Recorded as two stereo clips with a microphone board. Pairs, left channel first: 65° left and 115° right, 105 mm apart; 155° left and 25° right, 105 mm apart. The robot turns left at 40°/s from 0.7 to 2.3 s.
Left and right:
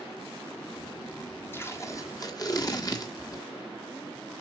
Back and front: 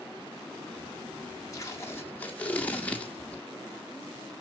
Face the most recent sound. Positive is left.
turn(degrees=90)